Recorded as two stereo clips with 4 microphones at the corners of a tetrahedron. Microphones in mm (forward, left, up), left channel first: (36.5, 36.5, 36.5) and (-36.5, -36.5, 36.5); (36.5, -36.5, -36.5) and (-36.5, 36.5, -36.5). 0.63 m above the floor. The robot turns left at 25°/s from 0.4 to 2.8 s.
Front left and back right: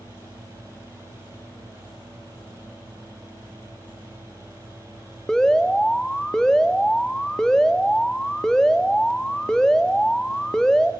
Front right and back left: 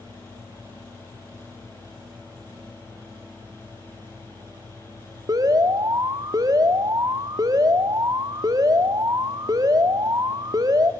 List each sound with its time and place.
5.3 s an alarm: 125° left, 1.3 m